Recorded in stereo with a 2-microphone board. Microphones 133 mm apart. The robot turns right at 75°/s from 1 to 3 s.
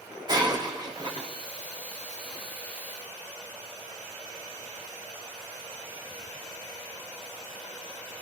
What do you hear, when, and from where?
0.3 s breaking glass: 30° right (ahead or behind), 4.5 m; by 1.3 s 50° right (ahead or behind), 4.5 m